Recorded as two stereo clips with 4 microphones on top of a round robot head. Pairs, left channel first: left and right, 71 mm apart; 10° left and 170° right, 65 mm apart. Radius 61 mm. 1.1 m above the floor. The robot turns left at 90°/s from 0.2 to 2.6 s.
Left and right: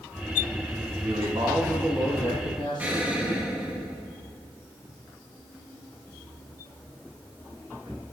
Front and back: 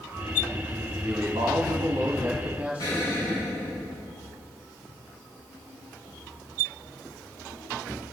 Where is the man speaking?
105° right, 2 m; by 3.8 s 110° left, 2 m.